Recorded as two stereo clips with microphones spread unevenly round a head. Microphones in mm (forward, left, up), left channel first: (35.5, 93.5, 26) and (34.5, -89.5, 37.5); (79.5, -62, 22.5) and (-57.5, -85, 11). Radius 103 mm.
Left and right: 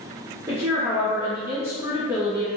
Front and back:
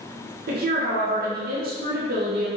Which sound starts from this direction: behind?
A woman speaking, at 0.5 s.